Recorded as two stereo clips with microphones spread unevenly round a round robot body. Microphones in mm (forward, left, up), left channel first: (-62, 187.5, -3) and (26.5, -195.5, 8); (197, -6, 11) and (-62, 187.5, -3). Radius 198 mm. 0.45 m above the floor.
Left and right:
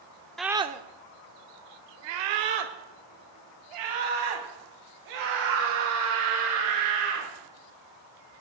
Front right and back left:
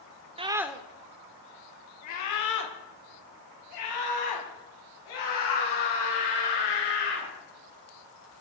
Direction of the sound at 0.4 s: 175° right.